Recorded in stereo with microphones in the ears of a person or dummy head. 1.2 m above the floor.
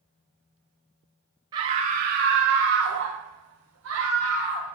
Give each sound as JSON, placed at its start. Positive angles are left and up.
{"t": 1.5, "sound": "a scream", "side_deg": -25, "distance_m": 0.7}